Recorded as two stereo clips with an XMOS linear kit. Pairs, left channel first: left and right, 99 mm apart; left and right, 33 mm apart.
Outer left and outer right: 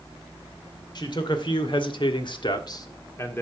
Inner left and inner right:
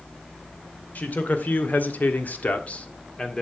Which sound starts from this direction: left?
A man speaking, at 0.9 s.